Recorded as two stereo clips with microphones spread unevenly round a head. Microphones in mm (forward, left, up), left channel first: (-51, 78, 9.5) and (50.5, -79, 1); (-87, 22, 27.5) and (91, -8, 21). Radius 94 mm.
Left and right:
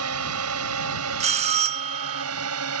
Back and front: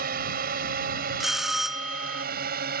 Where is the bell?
100° right.